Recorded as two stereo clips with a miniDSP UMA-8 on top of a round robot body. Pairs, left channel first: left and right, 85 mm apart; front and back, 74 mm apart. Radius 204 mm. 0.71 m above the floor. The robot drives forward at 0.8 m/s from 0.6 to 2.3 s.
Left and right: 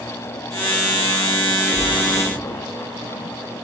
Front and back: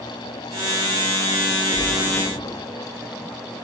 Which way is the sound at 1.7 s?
130° right.